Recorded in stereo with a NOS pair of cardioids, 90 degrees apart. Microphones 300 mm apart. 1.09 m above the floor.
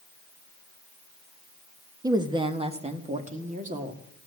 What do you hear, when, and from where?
2.0 s a woman speaking: 10° right, 1.6 m; by 4.0 s 30° right, 3 m